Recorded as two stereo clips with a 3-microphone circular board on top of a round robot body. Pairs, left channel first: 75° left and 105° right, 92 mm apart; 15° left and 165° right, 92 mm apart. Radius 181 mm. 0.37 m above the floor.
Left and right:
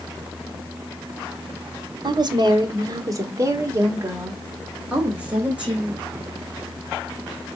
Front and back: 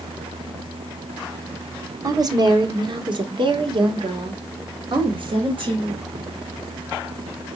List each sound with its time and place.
2.0 s a woman speaking: 125° right, 1.9 m; by 6.0 s 175° left, 3.5 m